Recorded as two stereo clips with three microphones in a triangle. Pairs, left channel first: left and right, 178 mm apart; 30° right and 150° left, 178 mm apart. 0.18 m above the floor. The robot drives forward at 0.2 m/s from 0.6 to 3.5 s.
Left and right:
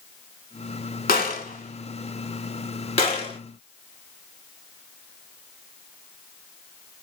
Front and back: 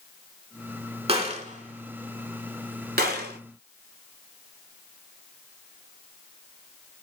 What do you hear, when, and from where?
1.1 s a gunshot: 105° left, 0.5 m; by 3.4 s 140° left, 0.8 m